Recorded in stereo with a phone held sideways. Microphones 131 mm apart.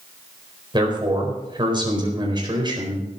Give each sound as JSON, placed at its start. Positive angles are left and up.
{"t": 0.7, "sound": "a man speaking", "side_deg": -35, "distance_m": 4.5}